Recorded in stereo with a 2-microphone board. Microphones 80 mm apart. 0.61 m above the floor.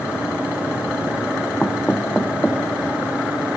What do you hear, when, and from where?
1.6 s knocking: 10° left (ahead or behind), 0.7 m